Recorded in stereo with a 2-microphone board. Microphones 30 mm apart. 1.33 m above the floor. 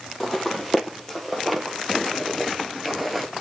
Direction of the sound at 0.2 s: 5° left (ahead or behind).